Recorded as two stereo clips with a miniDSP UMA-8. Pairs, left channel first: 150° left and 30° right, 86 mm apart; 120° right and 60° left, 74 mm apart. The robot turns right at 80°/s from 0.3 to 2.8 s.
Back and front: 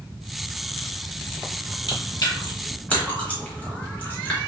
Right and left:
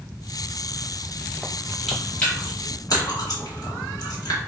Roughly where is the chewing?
Behind left.